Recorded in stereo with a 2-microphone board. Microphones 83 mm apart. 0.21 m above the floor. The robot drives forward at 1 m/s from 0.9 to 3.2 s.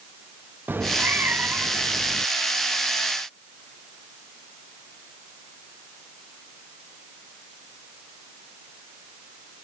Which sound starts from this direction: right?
A cat meowing, at 0.7 s.